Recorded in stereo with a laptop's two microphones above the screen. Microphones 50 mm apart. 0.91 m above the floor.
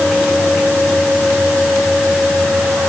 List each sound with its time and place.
Only background noise.